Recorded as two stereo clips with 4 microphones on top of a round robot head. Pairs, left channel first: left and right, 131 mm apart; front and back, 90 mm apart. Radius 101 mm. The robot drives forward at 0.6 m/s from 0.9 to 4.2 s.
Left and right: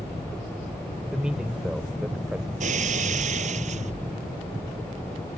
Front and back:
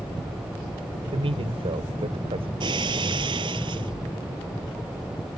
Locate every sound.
1.1 s a man speaking: 175° right
2.6 s breaking glass: 130° right; by 3.9 s 135° right